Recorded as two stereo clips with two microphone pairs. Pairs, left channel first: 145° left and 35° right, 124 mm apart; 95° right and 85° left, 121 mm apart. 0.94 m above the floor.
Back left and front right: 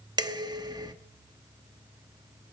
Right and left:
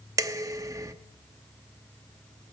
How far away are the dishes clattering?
About 1.0 m.